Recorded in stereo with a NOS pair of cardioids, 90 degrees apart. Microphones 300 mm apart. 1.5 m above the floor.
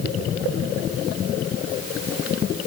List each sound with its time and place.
Only background noise.